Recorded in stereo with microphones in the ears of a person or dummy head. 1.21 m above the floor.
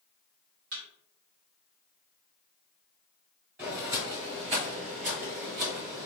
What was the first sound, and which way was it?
A thud, 50° right (ahead or behind).